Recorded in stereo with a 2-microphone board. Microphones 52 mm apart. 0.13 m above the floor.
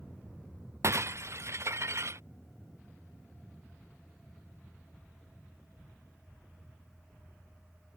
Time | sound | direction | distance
0.8 | breaking glass | 60° right (ahead or behind) | ?